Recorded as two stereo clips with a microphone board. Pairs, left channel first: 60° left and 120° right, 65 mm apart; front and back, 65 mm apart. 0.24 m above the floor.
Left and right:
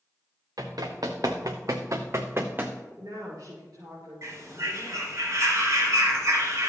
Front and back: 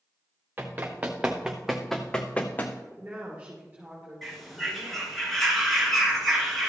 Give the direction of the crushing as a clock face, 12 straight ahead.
I don't hear crushing.